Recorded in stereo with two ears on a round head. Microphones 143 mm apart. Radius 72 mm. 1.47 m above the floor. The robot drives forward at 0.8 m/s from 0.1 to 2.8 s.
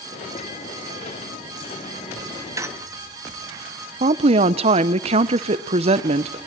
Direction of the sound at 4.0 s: 40° right (ahead or behind).